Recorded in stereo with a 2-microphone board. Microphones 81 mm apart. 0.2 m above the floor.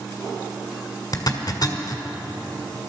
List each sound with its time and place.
1.1 s a zipper: 50° left (ahead or behind), 1.5 m